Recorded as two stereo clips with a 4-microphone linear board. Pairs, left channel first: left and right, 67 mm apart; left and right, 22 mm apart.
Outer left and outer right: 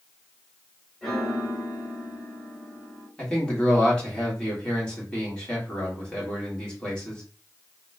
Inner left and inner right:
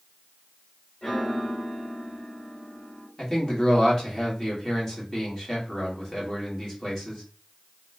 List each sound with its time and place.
1.0 s a piano: 5° left (ahead or behind), 1.8 m
3.2 s a man speaking: 15° left (ahead or behind), 1.5 m